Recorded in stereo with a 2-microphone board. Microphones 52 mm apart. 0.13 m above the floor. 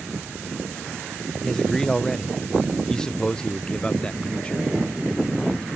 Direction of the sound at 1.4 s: 10° left (ahead or behind).